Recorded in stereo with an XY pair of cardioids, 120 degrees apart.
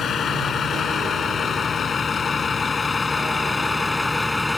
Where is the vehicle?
50° left; by 4.6 s 15° left.